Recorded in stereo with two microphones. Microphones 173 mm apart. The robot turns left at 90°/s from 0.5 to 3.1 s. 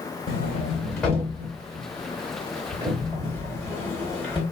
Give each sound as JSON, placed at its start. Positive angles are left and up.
{"t": 0.3, "sound": "a sliding door", "side_deg": 50, "distance_m": 1.1}